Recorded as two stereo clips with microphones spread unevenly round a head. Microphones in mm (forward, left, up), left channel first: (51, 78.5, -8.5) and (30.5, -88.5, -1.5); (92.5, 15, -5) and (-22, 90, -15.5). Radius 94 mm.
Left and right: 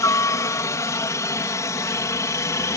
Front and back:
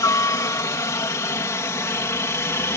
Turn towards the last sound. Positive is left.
turn(degrees=25)